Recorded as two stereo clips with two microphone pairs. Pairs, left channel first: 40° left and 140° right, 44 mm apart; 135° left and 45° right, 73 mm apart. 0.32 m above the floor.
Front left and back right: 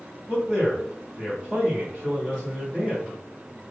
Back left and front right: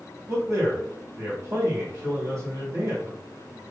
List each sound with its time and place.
0.3 s a man speaking: 40° right, 1.7 m